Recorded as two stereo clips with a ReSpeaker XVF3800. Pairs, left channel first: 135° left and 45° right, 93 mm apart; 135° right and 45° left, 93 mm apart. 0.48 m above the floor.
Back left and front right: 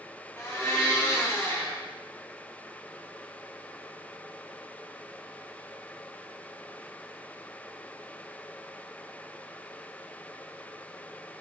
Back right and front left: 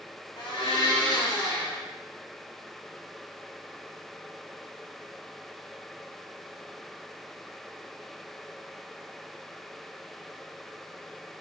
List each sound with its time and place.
0.4 s a blender: 165° right, 3 m